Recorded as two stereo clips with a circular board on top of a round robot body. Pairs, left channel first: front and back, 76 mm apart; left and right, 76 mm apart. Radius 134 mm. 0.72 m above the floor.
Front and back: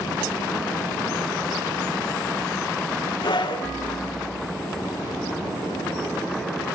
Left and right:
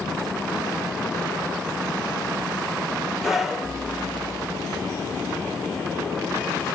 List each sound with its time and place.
3.2 s a scream: 5° right, 4 m